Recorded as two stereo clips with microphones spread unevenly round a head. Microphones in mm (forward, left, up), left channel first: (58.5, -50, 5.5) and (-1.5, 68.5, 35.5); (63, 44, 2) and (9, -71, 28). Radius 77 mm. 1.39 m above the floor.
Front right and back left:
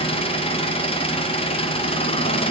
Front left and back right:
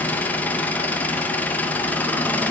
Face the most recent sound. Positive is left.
turn(degrees=-15)